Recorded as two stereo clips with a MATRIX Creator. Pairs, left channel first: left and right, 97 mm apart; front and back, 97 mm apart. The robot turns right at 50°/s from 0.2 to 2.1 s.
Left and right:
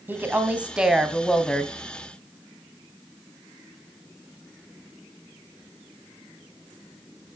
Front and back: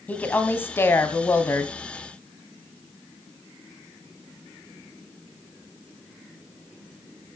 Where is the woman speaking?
50° right, 1.7 m; by 1.7 s 25° left, 1.7 m.